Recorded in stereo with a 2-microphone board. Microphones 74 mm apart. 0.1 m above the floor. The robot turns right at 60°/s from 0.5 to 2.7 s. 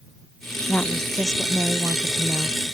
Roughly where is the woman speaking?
Behind left.